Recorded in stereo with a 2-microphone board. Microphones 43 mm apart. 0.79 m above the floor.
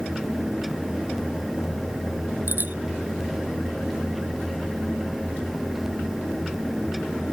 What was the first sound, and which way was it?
A bicycle bell, 50° right (ahead or behind).